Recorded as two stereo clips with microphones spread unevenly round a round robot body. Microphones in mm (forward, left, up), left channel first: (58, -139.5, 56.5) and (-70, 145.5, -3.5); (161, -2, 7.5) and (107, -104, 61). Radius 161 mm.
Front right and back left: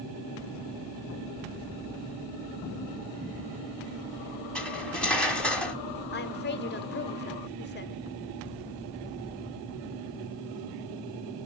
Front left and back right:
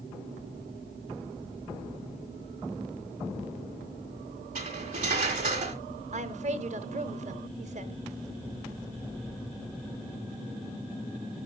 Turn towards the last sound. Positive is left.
turn(degrees=-120)